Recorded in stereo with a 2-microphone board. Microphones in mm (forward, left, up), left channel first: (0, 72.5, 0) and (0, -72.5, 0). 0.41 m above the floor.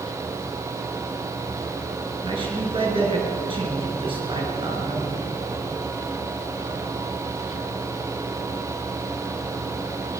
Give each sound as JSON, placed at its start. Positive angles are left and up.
{"t": 2.2, "sound": "a man speaking", "side_deg": -40, "distance_m": 7.0}